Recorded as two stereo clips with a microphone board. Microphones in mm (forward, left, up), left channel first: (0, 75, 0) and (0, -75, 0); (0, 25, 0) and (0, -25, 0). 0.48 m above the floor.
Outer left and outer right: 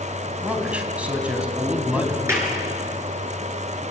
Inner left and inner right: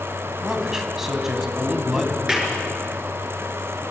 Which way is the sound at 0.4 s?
10° right (ahead or behind).